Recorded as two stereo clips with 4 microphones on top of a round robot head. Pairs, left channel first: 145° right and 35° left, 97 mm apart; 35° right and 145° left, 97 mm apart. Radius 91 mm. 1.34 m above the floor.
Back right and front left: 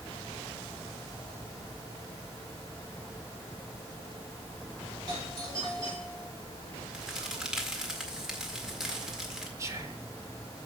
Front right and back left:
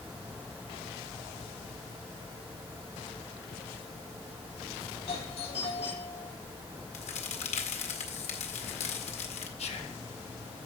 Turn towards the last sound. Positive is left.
turn(degrees=-25)